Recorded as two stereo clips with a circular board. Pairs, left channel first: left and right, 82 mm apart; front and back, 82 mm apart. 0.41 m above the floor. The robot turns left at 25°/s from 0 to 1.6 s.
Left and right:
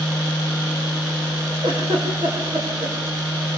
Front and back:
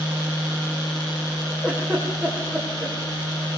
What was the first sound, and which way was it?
A giggle, 105° right.